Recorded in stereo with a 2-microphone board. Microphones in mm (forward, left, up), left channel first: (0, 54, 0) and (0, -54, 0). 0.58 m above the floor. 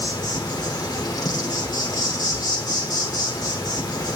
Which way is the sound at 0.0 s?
35° left (ahead or behind).